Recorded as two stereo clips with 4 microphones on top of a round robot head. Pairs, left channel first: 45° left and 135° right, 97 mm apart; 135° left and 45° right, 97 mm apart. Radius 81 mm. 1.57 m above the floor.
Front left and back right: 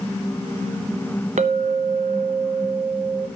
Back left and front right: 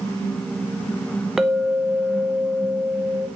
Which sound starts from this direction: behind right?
A clink, at 1.4 s.